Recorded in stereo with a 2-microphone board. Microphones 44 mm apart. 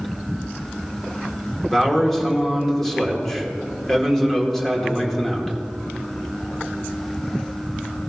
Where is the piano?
No piano in this recording.